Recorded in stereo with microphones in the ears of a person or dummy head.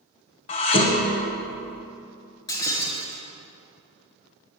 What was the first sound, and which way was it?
Dishes clattering, 30° left (ahead or behind).